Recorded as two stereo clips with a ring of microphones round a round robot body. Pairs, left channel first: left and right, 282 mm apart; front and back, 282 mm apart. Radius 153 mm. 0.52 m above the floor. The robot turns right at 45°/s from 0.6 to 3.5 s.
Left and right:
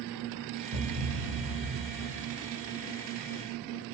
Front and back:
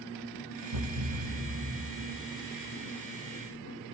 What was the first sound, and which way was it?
A thud, 160° right.